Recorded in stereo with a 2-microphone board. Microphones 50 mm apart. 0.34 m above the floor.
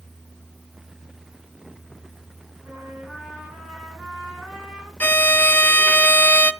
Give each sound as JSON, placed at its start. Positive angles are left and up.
{"t": 2.6, "sound": "a trumpet", "side_deg": -15, "distance_m": 4.5}
{"t": 5.0, "sound": "a violin", "side_deg": 35, "distance_m": 0.5}